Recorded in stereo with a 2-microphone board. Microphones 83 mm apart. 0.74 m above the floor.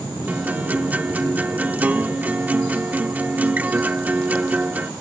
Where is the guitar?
20° right (ahead or behind).